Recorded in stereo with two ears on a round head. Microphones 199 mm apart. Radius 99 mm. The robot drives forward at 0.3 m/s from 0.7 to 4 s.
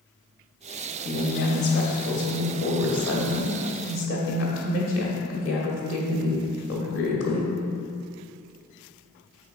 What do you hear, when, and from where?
1.1 s a woman speaking: 45° left (ahead or behind), 1.8 m; by 7.5 s 60° left (ahead or behind), 1.6 m